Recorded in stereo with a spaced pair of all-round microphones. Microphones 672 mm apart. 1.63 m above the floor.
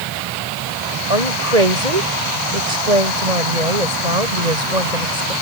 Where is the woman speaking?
75° right (ahead or behind).